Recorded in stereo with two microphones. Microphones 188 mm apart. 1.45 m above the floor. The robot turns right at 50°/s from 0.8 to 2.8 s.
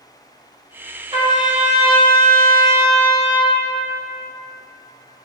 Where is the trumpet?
150° right, 1.0 m; by 3.6 s 65° right, 1.0 m.